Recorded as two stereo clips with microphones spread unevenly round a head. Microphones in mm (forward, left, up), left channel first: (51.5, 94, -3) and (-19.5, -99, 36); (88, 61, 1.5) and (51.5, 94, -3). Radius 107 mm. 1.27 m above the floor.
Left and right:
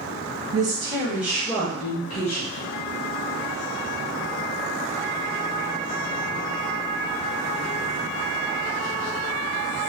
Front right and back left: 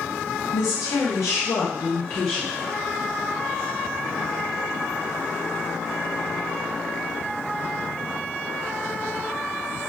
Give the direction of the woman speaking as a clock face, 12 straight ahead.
2 o'clock.